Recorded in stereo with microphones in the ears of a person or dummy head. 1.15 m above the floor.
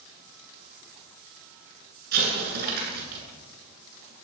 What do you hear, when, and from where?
2.1 s an explosion: 50° right (ahead or behind), 9.5 m